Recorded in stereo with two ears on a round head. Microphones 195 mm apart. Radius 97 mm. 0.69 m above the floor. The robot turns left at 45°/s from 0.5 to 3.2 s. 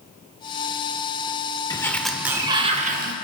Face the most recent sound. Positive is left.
turn(degrees=-50)